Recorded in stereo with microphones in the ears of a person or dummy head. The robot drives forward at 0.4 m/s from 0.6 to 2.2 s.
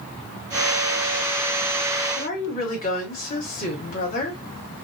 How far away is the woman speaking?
About 1.4 m.